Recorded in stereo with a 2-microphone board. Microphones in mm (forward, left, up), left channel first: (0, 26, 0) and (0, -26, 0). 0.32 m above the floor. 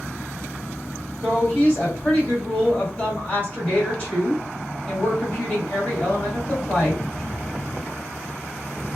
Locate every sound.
1.2 s a woman speaking: 25° left (ahead or behind), 1.7 m